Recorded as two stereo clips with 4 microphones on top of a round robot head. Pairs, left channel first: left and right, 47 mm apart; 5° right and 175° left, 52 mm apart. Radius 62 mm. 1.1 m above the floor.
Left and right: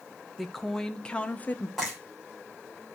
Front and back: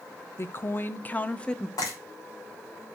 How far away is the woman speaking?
About 1.0 m.